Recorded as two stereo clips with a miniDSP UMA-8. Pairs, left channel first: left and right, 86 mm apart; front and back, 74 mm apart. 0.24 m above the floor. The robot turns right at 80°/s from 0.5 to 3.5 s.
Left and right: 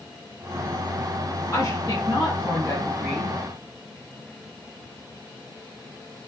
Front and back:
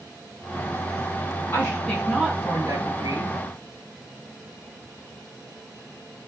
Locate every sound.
1.5 s a woman speaking: 50° left, 2.5 m; by 3.4 s 165° right, 2.5 m